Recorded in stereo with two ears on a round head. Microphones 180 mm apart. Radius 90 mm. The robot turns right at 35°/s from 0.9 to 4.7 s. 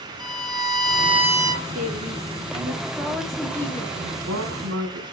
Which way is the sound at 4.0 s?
70° right (ahead or behind).